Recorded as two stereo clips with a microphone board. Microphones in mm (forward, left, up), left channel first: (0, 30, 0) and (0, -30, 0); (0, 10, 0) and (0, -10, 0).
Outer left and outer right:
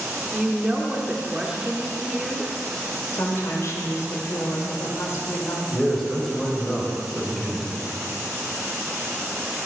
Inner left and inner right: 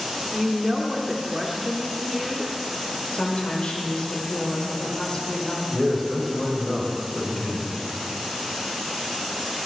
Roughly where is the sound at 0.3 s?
Centre.